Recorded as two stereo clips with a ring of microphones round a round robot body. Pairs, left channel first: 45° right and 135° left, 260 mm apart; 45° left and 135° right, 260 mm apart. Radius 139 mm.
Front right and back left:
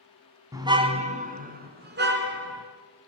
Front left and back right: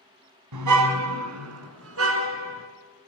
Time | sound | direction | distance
0.5 | a car horn | 145° right | 2.5 m